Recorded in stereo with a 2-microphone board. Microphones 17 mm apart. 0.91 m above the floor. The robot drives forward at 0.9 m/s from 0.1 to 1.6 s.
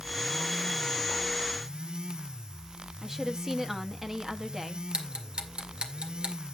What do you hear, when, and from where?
3.0 s a woman speaking: 25° right (ahead or behind), 1.2 m
4.9 s ticking: 75° right (ahead or behind), 1.9 m